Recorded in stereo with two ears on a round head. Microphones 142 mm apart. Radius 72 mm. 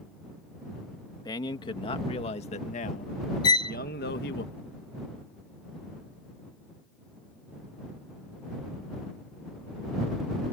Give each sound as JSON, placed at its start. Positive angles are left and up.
{"t": 1.2, "sound": "a man speaking", "side_deg": 25}
{"t": 3.4, "sound": "a violin", "side_deg": 25}